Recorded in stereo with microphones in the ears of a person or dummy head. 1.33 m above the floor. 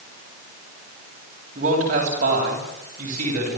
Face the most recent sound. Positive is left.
turn(degrees=-50)  # may be behind; listen again after turning